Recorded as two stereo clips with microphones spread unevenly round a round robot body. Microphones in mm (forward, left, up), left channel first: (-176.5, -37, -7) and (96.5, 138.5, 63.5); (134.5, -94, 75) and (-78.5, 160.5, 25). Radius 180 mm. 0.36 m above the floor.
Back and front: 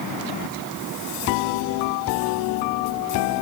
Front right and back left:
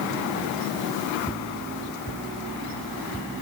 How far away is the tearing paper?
No tearing paper in this recording.